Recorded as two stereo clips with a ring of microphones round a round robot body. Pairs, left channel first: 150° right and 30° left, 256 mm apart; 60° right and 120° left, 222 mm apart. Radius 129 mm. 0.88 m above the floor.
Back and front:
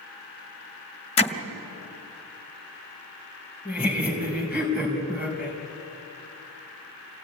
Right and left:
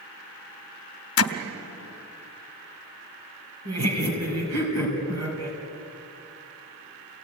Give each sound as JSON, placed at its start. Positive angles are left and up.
{"t": 1.2, "sound": "hammering", "azimuth_deg": -85, "distance_m": 1.3}
{"t": 3.6, "sound": "laughter", "azimuth_deg": 115, "distance_m": 4.5}